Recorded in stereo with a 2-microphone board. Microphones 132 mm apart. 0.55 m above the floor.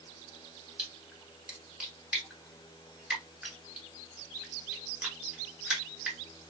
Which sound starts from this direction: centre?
A splash, at 0.8 s.